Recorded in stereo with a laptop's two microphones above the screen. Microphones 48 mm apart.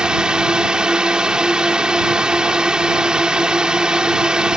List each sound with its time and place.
0.0 s a drone: 20° right (ahead or behind)